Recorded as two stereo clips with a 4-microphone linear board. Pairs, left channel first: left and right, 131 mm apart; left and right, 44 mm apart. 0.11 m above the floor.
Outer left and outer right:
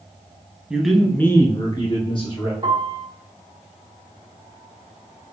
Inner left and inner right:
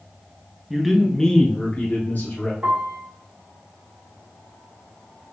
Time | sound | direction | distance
0.7 | a man speaking | 5° right (ahead or behind) | 1.1 m
2.6 | a piano | 40° right (ahead or behind) | 1.1 m